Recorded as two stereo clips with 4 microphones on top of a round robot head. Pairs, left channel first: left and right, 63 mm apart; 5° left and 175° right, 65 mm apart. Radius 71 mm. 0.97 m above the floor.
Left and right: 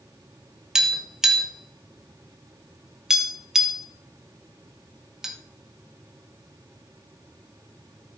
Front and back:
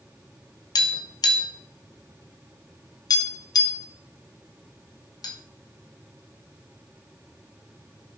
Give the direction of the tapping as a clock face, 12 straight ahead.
12 o'clock.